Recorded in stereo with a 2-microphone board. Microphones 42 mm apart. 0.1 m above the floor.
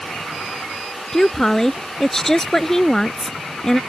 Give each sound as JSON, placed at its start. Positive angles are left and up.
{"t": 1.1, "sound": "a woman speaking", "side_deg": 10}